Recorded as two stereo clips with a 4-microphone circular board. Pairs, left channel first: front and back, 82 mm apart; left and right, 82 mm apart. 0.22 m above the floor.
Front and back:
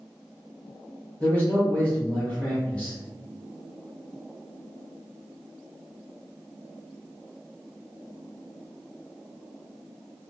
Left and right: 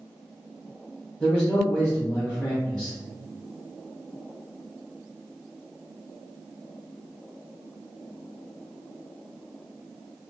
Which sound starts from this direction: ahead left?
A man speaking, at 1.2 s.